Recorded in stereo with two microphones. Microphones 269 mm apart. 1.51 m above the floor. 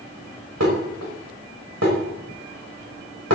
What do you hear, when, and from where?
0.6 s dishes clattering: 75° right (ahead or behind), 5.5 m